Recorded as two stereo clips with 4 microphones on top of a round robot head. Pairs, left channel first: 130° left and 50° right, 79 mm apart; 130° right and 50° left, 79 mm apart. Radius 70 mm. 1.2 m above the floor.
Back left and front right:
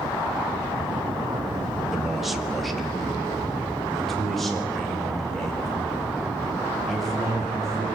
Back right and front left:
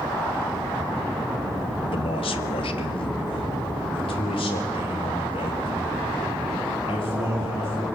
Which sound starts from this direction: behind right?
A man speaking, at 1.9 s.